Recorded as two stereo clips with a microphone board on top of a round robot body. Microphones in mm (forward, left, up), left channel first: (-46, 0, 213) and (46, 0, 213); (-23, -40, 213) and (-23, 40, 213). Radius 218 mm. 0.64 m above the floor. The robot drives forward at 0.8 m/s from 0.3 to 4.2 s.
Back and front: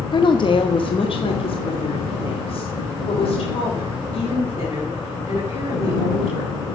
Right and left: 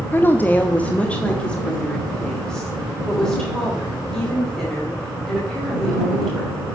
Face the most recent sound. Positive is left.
turn(degrees=-175)